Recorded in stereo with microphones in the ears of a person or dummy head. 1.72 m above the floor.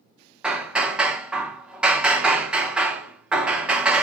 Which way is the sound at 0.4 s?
Centre (ahead or behind).